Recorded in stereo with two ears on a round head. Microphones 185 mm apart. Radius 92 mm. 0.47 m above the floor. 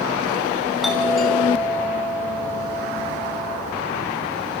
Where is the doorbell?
Centre (ahead or behind), 6.5 m.